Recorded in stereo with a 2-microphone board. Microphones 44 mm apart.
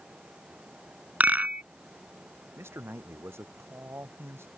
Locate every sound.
1.2 s a rattle: 40° right (ahead or behind)
2.6 s a man speaking: 65° right (ahead or behind)